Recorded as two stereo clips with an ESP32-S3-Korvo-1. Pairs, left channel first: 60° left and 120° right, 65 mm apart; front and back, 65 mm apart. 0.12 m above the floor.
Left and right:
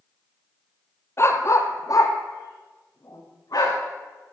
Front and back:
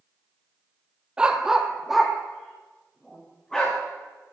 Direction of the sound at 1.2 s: 105° left.